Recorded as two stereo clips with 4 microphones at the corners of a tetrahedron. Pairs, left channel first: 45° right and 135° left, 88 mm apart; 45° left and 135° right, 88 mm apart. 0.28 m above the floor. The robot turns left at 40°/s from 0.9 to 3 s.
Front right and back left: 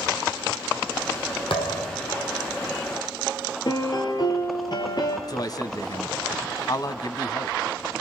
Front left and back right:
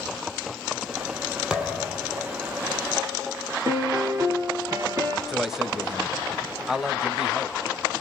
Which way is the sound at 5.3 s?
50° right.